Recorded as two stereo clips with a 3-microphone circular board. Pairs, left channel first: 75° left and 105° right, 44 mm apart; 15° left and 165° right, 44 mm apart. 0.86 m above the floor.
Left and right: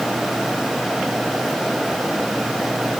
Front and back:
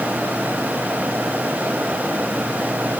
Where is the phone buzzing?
I don't hear a phone buzzing.